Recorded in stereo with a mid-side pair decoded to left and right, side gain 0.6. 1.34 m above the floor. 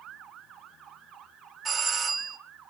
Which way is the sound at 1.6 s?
25° right.